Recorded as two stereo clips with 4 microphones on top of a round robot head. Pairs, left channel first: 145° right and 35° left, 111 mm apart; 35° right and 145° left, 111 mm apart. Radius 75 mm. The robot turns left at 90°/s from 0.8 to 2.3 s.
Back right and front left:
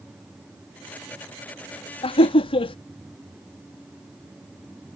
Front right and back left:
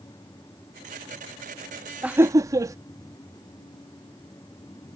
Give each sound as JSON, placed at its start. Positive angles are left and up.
{"t": 2.0, "sound": "laughter", "azimuth_deg": -135}